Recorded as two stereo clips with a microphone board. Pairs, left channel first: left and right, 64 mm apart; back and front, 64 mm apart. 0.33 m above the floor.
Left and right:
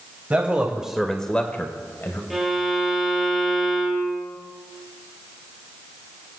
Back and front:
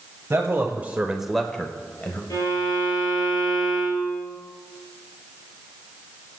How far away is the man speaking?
About 1.4 m.